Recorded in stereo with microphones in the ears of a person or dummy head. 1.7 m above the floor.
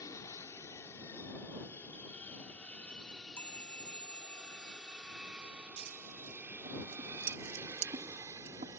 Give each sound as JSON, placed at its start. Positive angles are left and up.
{"t": 0.0, "sound": "an aircraft", "side_deg": 20}
{"t": 3.1, "sound": "a chime", "side_deg": 10}
{"t": 5.8, "sound": "scissors", "side_deg": -40}